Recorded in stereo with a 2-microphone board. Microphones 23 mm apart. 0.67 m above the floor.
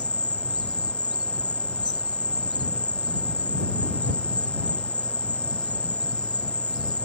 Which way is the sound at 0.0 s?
85° left.